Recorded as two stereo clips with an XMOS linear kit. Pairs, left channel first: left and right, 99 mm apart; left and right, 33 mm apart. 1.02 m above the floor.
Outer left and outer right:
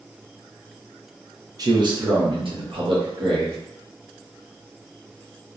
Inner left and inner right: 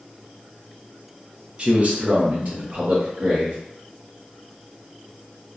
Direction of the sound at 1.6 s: 40° right (ahead or behind).